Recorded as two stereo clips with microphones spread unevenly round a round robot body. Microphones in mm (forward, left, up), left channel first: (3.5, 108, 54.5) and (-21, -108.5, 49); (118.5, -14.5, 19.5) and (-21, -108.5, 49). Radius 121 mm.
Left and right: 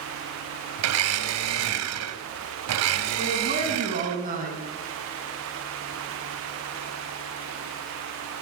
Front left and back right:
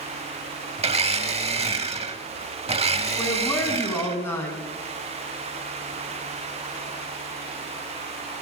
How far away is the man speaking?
About 4.5 m.